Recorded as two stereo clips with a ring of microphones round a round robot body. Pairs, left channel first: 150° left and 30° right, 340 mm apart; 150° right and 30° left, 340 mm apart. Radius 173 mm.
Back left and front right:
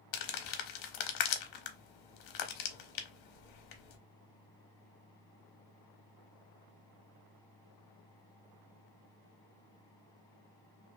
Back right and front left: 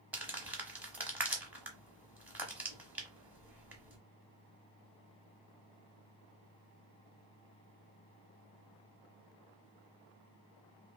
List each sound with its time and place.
0.1 s crumpling: 115° left, 0.6 m